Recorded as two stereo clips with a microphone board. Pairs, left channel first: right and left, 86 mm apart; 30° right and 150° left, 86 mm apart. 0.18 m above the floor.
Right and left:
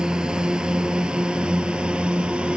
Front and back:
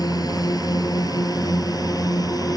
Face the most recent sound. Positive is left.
turn(degrees=15)